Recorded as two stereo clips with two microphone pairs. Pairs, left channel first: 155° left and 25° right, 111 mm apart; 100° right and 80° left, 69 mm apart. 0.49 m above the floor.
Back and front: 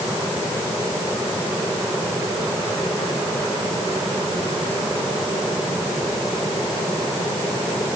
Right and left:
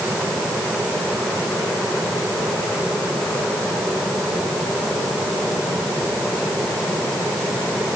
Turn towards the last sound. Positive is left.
No sound to turn to.